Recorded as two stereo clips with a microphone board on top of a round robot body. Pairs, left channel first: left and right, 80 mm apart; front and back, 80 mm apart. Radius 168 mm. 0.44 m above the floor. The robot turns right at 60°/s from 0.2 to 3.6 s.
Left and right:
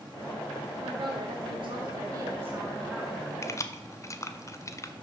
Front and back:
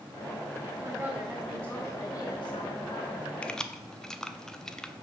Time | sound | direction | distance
0.8 | a woman speaking | 140° right | 1.7 m
3.4 | keys jangling | 65° left | 0.8 m